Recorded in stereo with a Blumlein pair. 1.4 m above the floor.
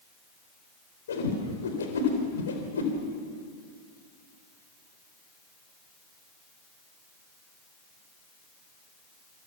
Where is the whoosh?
65° left, 4 m.